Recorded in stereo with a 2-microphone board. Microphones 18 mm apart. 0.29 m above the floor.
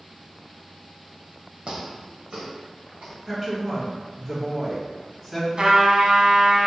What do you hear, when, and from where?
1.7 s footsteps: 70° right (ahead or behind), 0.9 m; by 3.2 s 75° right (ahead or behind), 2.5 m
3.3 s a woman speaking: 5° right (ahead or behind), 1.6 m
5.6 s a trumpet: 65° right (ahead or behind), 0.6 m